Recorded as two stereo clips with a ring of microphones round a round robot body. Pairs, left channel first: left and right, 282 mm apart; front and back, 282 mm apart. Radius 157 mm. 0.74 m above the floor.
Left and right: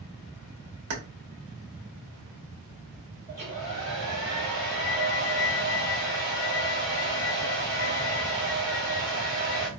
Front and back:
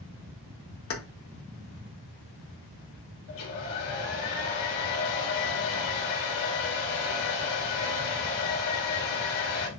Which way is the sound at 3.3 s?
10° left.